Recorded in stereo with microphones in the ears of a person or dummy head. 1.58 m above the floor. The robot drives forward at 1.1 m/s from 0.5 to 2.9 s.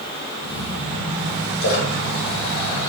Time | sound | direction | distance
1.6 | a splash | 70° left (ahead or behind) | 3.5 m